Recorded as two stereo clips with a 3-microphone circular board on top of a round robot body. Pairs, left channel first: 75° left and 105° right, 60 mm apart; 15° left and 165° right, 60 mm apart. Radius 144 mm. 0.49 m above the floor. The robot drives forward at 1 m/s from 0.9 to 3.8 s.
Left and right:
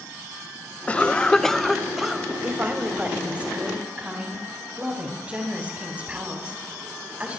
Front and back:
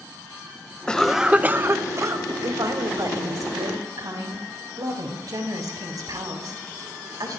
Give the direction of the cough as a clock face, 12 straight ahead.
10 o'clock.